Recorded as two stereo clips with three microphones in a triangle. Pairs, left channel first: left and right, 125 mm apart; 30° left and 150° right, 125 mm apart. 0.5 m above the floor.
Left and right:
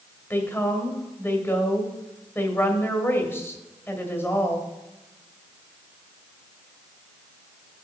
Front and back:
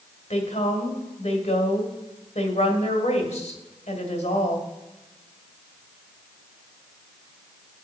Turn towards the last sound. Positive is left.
turn(degrees=20)